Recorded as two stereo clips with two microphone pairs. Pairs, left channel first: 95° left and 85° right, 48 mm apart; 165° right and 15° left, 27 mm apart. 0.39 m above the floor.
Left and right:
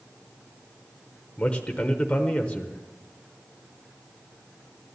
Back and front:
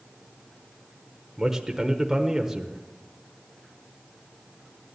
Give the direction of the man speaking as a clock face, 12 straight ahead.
10 o'clock.